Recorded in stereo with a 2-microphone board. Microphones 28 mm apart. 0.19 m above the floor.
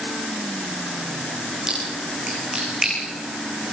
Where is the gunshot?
I don't hear a gunshot.